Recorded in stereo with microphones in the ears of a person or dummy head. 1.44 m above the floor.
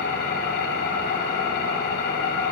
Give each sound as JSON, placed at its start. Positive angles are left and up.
{"t": 0.0, "sound": "an engine running", "side_deg": 70, "distance_m": 4.5}